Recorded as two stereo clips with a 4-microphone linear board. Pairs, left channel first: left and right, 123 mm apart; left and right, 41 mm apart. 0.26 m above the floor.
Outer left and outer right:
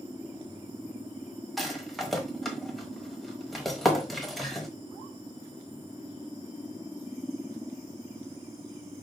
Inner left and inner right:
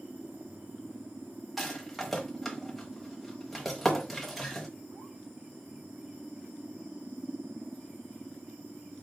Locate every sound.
1.6 s a rattle: centre (ahead or behind), 1.0 m